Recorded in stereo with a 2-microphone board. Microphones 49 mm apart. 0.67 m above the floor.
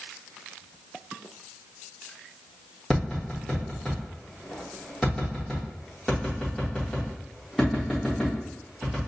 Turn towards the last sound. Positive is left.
turn(degrees=5)  # may be behind; listen again after turning